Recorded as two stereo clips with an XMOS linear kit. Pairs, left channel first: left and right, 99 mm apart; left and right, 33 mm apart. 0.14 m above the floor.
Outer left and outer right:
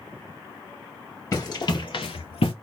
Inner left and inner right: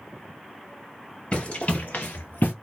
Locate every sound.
1.3 s running footsteps: 35° left (ahead or behind), 1.7 m; by 2.5 s 60° left (ahead or behind), 0.7 m